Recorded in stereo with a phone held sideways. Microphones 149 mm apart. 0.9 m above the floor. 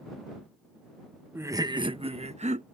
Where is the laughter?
15° right (ahead or behind); by 2.6 s 55° right (ahead or behind).